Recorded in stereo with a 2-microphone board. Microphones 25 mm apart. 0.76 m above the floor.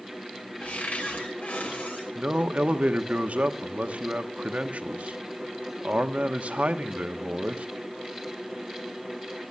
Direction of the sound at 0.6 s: 65° left (ahead or behind).